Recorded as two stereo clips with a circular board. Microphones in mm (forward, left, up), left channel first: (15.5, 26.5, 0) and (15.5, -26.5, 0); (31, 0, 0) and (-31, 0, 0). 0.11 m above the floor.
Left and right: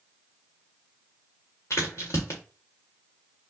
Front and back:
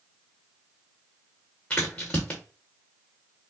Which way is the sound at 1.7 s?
70° left.